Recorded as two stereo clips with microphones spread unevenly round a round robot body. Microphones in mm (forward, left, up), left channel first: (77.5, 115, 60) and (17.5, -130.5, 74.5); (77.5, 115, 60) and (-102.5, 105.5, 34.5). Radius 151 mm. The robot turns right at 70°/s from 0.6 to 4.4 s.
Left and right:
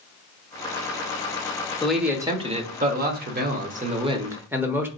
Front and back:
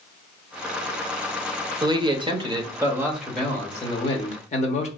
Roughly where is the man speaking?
Behind left.